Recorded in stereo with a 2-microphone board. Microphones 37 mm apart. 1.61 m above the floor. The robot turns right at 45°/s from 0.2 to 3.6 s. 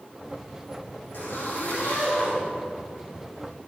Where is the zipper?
105° left, 3.5 m; by 2.4 s 165° left, 3.5 m.